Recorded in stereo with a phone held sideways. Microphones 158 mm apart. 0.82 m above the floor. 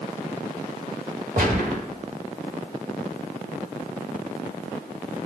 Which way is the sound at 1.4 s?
65° right (ahead or behind).